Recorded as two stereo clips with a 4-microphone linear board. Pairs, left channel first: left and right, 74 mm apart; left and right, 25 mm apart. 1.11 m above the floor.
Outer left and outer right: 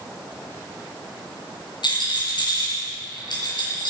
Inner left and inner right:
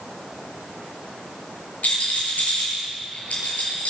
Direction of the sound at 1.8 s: 70° left (ahead or behind).